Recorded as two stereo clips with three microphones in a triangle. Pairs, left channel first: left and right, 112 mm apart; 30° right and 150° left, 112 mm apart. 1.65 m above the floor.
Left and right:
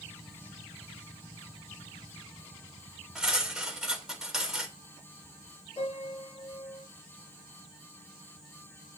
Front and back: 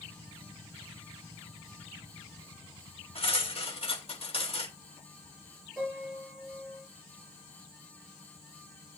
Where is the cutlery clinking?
5° right, 2.5 m.